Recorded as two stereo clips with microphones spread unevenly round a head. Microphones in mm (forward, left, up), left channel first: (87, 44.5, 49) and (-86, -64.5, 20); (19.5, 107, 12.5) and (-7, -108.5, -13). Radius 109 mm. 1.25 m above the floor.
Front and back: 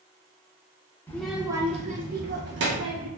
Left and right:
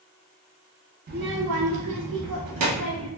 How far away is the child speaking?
About 0.6 m.